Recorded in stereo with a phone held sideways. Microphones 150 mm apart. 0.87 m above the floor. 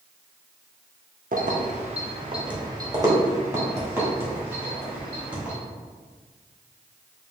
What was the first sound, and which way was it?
Keys jangling, 55° right (ahead or behind).